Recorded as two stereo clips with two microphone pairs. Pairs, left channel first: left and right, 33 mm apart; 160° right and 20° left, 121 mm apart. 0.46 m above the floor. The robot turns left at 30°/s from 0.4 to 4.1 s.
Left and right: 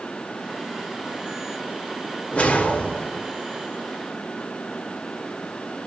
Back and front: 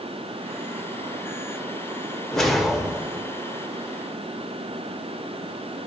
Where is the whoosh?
115° left, 0.6 m; by 3.3 s 90° left, 0.6 m.